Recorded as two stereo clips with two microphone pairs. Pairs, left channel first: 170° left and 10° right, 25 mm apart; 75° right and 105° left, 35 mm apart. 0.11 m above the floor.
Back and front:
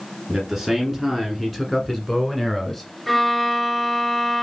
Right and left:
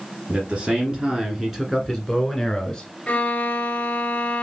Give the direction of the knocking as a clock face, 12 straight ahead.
I don't hear knocking.